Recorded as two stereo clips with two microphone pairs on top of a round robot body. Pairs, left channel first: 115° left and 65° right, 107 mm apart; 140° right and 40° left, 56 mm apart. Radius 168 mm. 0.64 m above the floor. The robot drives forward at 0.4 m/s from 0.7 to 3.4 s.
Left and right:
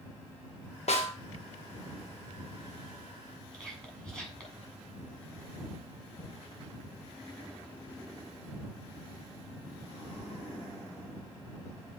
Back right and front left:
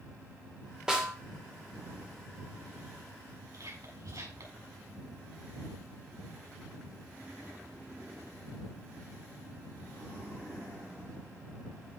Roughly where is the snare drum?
Behind left.